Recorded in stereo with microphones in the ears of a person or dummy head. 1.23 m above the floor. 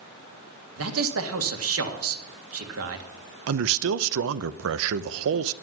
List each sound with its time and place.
0.8 s a man speaking: 70° right (ahead or behind), 1.8 m
3.5 s a man speaking: 75° right (ahead or behind), 0.6 m